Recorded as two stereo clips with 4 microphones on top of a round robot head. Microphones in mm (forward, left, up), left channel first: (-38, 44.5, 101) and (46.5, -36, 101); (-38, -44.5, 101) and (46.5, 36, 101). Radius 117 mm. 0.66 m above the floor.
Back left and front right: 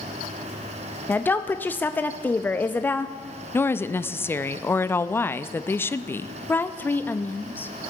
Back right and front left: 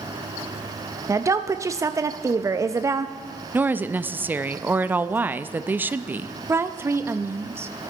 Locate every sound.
1.1 s a woman speaking: 75° left, 0.5 m
3.5 s a woman speaking: 95° left, 0.5 m
6.5 s a woman speaking: 85° left, 0.5 m